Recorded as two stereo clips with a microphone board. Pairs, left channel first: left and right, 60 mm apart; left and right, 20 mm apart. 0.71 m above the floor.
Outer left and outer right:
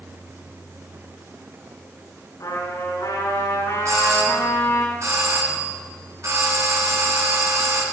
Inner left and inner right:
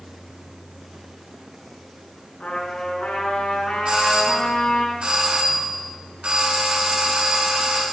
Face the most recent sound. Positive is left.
turn(degrees=-50)  # may be behind; listen again after turning